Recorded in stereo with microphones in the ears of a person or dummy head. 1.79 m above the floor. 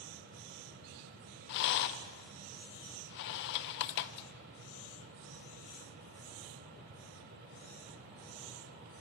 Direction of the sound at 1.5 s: 65° left (ahead or behind).